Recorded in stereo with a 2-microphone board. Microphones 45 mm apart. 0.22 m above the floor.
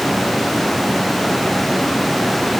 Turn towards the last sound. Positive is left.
No sound to turn to.